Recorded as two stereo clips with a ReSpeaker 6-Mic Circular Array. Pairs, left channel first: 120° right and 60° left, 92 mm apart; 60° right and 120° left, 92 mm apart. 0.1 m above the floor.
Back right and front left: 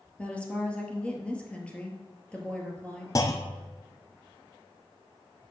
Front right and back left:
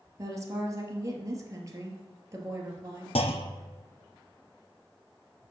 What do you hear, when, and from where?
0.2 s a woman speaking: 165° left, 1.9 m
3.1 s a clunk: 65° right, 0.8 m